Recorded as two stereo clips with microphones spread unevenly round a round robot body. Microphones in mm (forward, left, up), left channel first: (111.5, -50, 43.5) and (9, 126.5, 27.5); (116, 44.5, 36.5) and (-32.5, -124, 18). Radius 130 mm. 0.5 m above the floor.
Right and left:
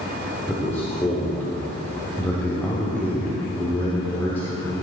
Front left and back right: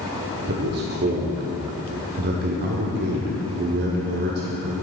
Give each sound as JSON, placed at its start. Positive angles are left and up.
{"t": 0.5, "sound": "a man speaking", "azimuth_deg": -145, "distance_m": 1.2}